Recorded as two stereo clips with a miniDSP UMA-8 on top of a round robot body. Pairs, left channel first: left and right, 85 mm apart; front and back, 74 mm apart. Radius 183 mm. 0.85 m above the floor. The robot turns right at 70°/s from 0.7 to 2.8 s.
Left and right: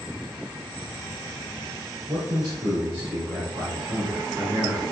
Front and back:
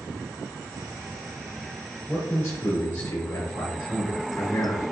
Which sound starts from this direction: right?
A man speaking, at 2.1 s.